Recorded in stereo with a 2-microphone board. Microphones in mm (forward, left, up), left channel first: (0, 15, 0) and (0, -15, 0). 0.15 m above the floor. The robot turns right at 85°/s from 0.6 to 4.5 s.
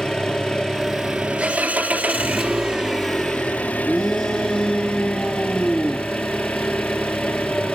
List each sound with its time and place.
0.0 s an engine running: 155° left, 3.5 m; by 7.7 s 125° left, 3.5 m
3.9 s a shout: straight ahead, 2.5 m; by 6.1 s 55° left, 2.5 m